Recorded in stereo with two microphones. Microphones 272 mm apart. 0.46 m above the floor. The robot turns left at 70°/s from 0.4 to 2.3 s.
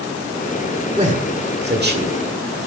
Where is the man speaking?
25° right (ahead or behind), 1.7 m; by 2.2 s 30° right (ahead or behind), 1.7 m.